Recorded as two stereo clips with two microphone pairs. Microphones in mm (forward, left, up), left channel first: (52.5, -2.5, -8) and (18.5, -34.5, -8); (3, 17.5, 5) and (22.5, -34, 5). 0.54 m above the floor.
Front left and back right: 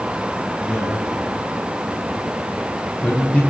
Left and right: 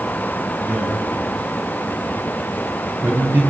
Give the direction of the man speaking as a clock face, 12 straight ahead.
1 o'clock.